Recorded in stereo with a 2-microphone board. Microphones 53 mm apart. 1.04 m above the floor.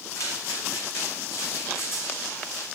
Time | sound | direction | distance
0.1 | footsteps | 75° left (ahead or behind) | 5 m